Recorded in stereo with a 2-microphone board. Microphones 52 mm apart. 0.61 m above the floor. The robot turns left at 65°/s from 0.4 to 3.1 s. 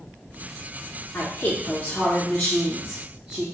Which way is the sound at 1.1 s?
85° left.